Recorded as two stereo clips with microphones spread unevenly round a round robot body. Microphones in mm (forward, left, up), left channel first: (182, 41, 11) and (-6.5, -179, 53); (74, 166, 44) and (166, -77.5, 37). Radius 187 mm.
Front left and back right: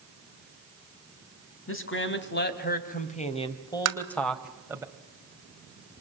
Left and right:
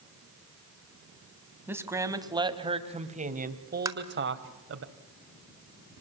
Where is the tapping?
135° right, 1.5 m.